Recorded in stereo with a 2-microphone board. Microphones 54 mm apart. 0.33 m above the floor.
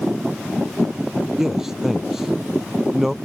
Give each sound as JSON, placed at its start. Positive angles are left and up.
{"t": 1.4, "sound": "a man speaking", "side_deg": -10}